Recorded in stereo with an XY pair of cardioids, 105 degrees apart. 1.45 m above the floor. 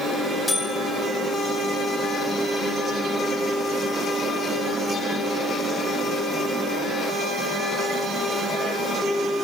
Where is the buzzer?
10° left, 4 m.